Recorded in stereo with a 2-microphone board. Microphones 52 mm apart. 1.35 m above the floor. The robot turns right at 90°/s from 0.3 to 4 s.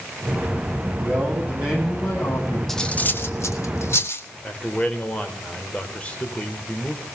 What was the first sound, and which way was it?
A man speaking, 75° right.